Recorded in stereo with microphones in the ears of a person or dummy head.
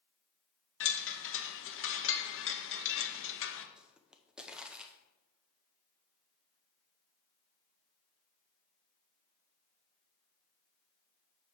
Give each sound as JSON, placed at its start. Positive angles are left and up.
{"t": 0.8, "sound": "a chime", "side_deg": 60, "distance_m": 0.8}
{"t": 3.8, "sound": "a pop", "side_deg": 0, "distance_m": 0.6}